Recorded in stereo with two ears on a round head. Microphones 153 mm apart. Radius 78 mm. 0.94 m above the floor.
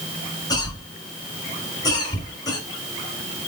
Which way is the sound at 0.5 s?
25° left (ahead or behind).